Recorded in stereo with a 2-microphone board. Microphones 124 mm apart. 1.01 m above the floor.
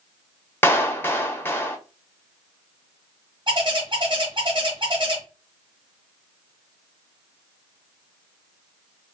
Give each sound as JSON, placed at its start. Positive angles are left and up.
{"t": 0.6, "sound": "a clap", "side_deg": 20, "distance_m": 0.5}
{"t": 3.5, "sound": "a bird", "side_deg": -45, "distance_m": 1.0}